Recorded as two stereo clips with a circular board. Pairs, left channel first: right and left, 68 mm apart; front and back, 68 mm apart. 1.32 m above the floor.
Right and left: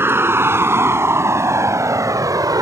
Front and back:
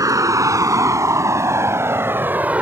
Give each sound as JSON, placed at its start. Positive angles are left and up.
{"t": 0.0, "sound": "a vehicle", "azimuth_deg": 145}